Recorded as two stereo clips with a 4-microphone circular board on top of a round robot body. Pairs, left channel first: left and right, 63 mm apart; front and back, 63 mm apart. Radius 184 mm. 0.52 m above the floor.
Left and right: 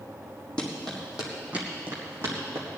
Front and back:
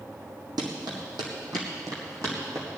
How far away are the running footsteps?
About 2.5 m.